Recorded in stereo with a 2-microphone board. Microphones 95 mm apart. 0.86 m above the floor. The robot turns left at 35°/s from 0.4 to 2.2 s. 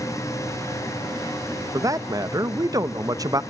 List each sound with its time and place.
1.7 s a man speaking: 35° right (ahead or behind), 0.6 m; by 3.4 s 40° right (ahead or behind), 0.6 m